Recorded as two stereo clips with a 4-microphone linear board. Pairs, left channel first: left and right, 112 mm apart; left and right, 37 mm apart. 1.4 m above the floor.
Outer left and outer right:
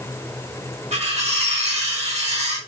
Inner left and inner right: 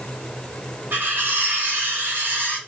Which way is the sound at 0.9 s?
70° right (ahead or behind).